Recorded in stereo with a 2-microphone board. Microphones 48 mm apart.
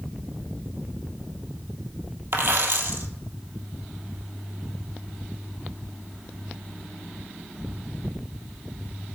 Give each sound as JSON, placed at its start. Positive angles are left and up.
{"t": 2.3, "sound": "a dropped coin", "side_deg": -60, "distance_m": 1.0}